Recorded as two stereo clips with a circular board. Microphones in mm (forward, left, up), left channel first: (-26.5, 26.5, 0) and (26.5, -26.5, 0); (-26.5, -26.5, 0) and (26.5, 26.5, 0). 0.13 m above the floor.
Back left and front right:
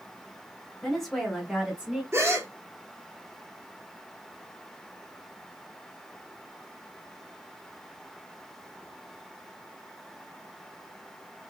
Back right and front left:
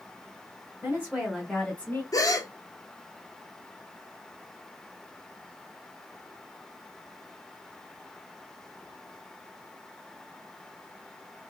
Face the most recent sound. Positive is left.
turn(degrees=-100)